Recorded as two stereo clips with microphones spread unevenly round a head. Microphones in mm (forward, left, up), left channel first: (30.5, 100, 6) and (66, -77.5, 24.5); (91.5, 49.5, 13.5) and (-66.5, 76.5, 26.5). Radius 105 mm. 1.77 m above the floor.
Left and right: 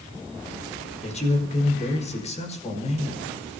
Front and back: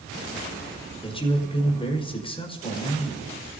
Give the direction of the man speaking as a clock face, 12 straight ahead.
10 o'clock.